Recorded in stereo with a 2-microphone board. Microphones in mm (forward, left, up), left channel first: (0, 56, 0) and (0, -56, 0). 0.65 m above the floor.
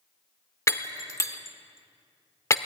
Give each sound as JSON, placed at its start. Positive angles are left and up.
{"t": 0.7, "sound": "breaking glass", "side_deg": 30, "distance_m": 1.2}